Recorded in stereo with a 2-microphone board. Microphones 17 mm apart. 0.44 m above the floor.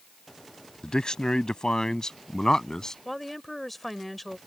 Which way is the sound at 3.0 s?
5° left (ahead or behind).